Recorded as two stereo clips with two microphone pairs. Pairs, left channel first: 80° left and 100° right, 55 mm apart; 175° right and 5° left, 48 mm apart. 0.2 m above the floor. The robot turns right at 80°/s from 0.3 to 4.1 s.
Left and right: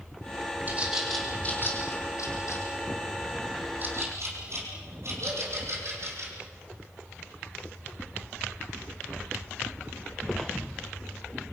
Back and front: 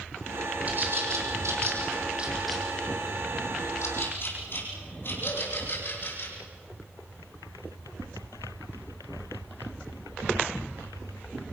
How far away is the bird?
About 6 m.